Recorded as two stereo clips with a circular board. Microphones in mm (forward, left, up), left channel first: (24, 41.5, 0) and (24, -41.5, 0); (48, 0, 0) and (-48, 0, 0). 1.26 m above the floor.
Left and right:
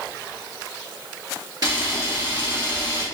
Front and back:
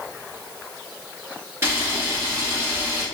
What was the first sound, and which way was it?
A camera shutter, 120° right.